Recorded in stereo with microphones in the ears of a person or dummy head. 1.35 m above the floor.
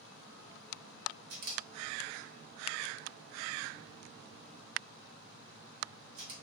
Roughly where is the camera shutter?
Right.